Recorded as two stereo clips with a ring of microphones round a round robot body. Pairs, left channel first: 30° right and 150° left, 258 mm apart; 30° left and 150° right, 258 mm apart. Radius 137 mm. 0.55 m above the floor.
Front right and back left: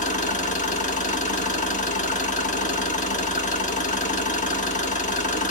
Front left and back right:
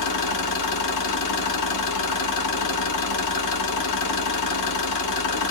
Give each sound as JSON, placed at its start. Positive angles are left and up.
{"t": 0.0, "sound": "an engine running", "azimuth_deg": 30, "distance_m": 0.8}